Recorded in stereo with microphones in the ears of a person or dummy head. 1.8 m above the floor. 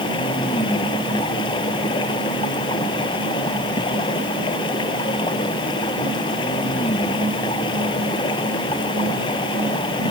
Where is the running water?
30° left (ahead or behind).